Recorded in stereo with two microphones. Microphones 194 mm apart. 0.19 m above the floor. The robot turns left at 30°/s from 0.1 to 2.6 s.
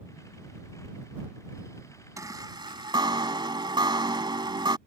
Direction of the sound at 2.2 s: 15° right (ahead or behind).